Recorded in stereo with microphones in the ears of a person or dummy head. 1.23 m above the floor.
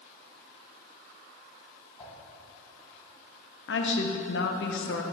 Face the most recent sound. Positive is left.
turn(degrees=60)  # may be behind; listen again after turning